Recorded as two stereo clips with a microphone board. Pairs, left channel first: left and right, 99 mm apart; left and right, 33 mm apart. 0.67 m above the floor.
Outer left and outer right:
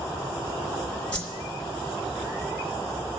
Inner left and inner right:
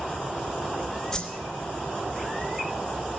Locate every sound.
1.1 s a whoosh: 15° left (ahead or behind), 3 m